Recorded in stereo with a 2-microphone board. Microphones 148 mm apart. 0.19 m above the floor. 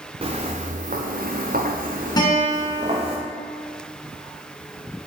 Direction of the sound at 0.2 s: 40° right (ahead or behind).